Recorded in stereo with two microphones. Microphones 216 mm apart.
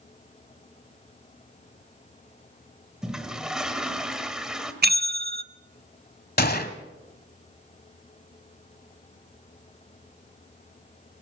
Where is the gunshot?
45° left (ahead or behind), 1.2 m.